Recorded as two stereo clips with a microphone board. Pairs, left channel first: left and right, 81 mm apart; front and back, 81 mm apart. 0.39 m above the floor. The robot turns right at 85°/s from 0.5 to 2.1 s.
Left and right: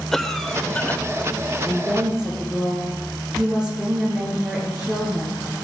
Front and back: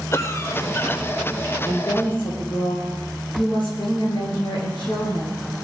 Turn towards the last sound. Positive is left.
turn(degrees=-10)